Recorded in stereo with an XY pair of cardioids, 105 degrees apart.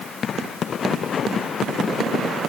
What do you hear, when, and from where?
Only background noise.